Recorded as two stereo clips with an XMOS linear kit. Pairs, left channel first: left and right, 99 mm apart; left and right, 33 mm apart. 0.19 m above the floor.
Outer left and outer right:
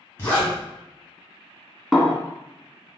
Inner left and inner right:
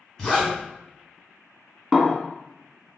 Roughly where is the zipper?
Left.